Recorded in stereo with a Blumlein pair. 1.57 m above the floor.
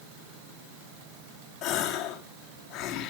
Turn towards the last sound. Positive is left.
turn(degrees=40)